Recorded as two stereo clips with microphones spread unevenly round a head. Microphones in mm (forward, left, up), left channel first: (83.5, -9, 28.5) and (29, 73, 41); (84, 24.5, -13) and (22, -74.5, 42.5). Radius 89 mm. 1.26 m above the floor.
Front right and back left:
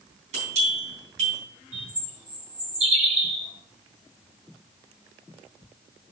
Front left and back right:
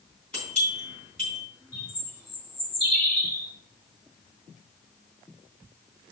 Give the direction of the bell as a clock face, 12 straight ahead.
7 o'clock.